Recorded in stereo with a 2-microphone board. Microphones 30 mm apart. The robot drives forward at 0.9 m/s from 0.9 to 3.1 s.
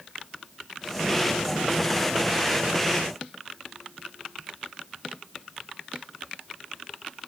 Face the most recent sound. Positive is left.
No sound to turn to.